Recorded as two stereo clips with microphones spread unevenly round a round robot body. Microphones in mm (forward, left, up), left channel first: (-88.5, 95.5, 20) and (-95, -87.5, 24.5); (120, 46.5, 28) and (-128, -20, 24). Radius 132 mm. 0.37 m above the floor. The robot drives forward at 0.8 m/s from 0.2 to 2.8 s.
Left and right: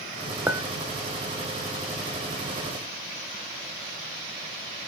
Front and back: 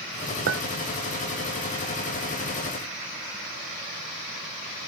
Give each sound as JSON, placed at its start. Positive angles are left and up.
{"t": 0.5, "sound": "a clink", "azimuth_deg": -170, "distance_m": 0.6}